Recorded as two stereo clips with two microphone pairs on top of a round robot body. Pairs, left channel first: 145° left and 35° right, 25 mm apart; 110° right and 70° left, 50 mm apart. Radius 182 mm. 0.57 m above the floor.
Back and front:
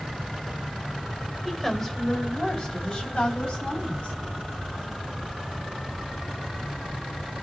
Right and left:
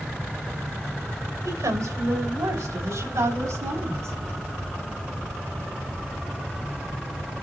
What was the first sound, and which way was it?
A woman speaking, 70° left.